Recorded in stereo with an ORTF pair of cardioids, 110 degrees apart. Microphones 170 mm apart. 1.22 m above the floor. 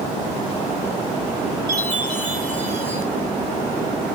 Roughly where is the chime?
Ahead right.